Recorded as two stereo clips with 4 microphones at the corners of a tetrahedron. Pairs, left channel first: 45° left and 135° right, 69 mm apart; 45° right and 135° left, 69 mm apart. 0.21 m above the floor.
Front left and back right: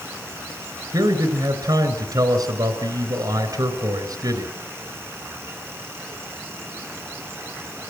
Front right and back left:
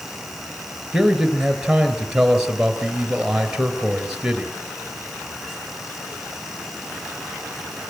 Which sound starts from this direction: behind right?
A man speaking, at 0.9 s.